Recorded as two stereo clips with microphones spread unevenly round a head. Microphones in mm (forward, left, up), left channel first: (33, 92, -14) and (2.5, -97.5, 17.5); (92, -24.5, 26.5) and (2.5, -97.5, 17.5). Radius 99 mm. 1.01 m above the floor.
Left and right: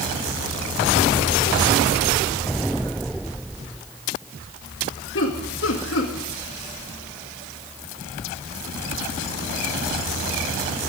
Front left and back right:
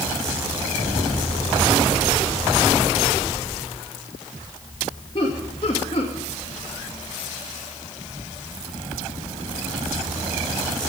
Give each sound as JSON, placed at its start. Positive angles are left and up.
{"t": 5.2, "sound": "laughter", "azimuth_deg": 95, "distance_m": 2.0}